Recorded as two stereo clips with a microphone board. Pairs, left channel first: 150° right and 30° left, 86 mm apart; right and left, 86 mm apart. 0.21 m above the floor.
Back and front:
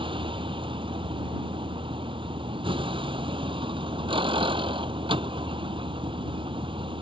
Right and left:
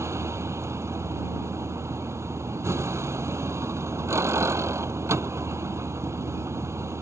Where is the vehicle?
35° left.